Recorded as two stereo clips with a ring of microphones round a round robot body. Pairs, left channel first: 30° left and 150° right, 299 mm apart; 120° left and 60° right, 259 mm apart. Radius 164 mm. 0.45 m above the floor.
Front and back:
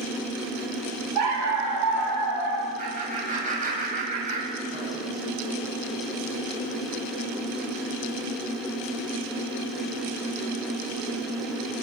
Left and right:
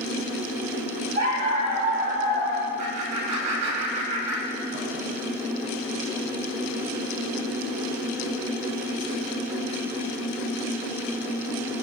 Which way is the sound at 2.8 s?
85° right.